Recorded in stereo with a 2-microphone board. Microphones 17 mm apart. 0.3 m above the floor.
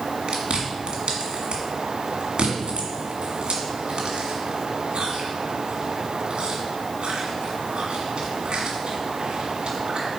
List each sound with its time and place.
0.3 s chewing: 70° right (ahead or behind), 1.7 m